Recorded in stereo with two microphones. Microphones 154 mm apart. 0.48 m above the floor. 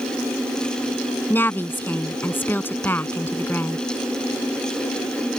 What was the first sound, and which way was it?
A woman speaking, 15° left (ahead or behind).